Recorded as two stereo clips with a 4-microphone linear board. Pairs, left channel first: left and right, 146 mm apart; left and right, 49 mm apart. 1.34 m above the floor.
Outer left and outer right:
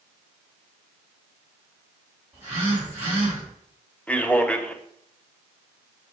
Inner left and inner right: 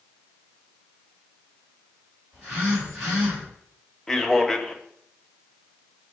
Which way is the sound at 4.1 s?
10° left (ahead or behind).